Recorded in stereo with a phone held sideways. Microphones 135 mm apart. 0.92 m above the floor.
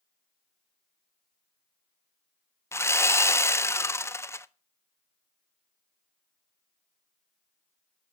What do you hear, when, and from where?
2.7 s sawing: 20° left (ahead or behind), 0.5 m